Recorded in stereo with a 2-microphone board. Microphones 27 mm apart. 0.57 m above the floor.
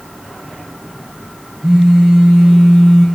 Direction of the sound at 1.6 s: 75° right (ahead or behind).